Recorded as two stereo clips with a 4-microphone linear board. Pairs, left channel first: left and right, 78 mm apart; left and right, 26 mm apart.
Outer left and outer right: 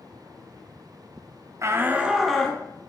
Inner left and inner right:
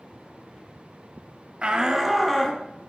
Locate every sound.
1.6 s a shout: 40° right (ahead or behind), 1.0 m; by 2.6 s 5° left (ahead or behind), 1.6 m